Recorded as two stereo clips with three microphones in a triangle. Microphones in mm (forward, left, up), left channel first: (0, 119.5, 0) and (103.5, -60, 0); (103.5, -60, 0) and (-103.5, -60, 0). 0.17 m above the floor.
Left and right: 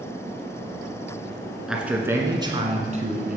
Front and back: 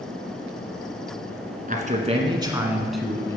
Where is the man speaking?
145° right, 1.6 m; by 3.4 s 70° right, 1.5 m.